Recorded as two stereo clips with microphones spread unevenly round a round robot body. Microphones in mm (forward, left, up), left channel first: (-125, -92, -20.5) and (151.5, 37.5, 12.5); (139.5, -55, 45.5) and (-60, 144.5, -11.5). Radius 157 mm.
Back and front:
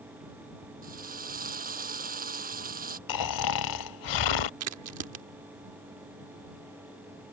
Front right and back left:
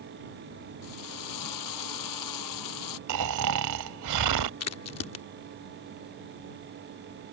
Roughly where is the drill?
Ahead right.